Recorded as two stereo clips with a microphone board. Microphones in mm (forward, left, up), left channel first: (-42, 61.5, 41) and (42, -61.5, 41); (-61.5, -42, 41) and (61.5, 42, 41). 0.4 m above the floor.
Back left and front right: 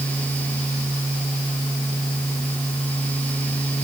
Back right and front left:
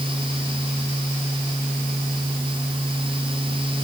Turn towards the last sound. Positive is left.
No sound to turn to.